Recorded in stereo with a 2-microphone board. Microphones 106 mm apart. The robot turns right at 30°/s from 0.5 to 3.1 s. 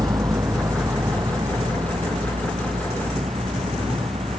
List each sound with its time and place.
0.0 s a vehicle: 40° right (ahead or behind); by 4.4 s 85° right